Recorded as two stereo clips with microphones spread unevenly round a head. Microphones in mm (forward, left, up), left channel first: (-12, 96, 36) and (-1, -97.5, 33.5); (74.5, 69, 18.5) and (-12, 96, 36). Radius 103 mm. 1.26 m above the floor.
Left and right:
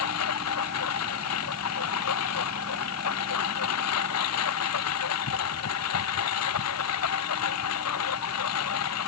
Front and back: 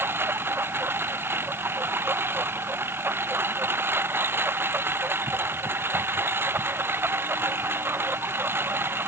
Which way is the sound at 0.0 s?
95° left.